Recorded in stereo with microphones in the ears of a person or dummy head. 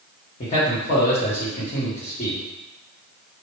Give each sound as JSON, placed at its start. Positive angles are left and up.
{"t": 0.4, "sound": "a man speaking", "side_deg": 50, "distance_m": 1.8}